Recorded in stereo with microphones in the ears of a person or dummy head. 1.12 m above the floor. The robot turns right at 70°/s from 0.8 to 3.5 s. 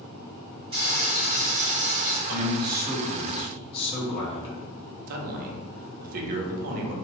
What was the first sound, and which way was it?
Frying, 150° right.